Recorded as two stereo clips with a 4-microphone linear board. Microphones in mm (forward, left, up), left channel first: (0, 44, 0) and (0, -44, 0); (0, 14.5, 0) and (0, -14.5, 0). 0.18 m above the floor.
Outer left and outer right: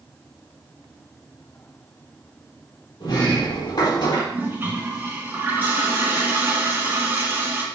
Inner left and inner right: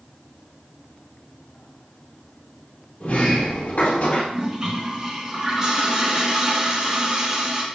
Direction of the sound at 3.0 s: 55° left (ahead or behind).